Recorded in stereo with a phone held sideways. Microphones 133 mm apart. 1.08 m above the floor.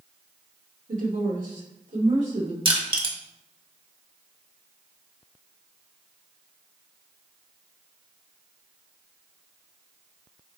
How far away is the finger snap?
No finger snap in this recording.